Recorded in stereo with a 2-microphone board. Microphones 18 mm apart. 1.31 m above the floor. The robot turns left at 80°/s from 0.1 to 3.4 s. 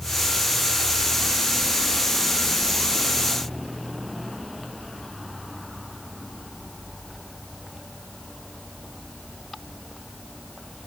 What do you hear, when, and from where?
Only background noise.